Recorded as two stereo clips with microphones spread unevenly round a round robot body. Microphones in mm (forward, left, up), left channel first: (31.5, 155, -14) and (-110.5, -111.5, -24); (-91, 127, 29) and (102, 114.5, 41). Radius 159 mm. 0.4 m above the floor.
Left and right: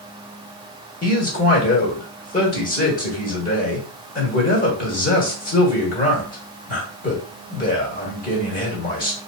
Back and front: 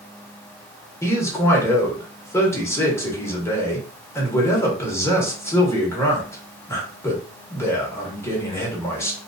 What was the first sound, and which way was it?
A man speaking, 110° left.